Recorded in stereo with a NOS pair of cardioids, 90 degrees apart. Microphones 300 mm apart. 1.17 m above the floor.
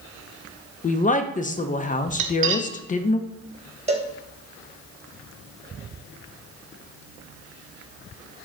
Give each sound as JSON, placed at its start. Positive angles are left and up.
{"t": 0.8, "sound": "a woman speaking", "azimuth_deg": 25, "distance_m": 0.5}
{"t": 2.2, "sound": "cutlery clinking", "azimuth_deg": -45, "distance_m": 0.7}
{"t": 3.9, "sound": "a cowbell", "azimuth_deg": -20, "distance_m": 1.0}